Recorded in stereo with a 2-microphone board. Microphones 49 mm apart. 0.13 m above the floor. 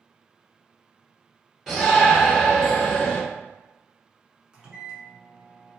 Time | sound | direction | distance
1.7 | a shout | 5° right (ahead or behind) | 1.6 m
4.5 | a microwave | 20° right (ahead or behind) | 0.9 m